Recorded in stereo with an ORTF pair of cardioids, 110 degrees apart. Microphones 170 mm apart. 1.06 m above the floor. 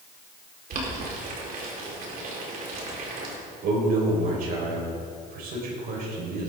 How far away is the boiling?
About 4 m.